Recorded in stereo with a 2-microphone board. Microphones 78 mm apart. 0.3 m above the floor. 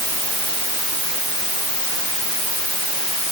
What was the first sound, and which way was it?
Only background noise.